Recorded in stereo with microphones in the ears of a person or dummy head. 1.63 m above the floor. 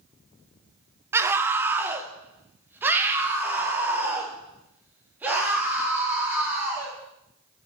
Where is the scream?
15° right (ahead or behind), 1.0 m; by 6.9 s 10° right (ahead or behind), 4 m.